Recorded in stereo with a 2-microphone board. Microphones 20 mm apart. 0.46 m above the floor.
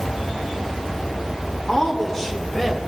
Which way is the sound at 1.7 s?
30° left (ahead or behind).